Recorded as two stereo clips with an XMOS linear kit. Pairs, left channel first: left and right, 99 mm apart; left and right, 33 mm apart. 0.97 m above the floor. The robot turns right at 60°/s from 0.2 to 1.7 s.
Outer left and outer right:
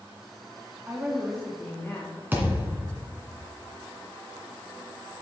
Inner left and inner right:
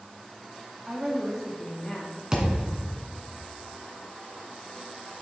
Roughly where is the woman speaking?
Ahead right.